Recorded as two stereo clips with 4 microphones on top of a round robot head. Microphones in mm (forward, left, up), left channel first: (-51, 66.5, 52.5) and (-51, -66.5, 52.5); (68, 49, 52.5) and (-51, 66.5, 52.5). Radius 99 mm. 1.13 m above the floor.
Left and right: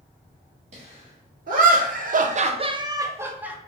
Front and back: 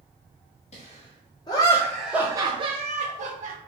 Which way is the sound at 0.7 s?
50° right.